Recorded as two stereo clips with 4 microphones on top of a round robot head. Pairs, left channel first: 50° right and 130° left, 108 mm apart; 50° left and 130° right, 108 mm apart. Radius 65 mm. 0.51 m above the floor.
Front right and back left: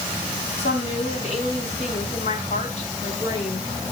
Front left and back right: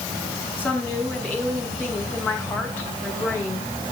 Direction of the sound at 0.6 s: 25° right.